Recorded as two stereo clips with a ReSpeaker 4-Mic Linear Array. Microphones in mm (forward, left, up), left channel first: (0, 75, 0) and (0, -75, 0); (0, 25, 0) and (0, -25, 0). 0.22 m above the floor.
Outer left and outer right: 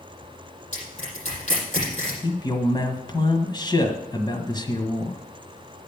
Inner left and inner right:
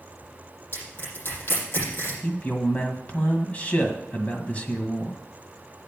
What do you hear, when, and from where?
0.7 s crushing: 50° left (ahead or behind), 7.5 m
2.2 s a man speaking: 30° left (ahead or behind), 1.6 m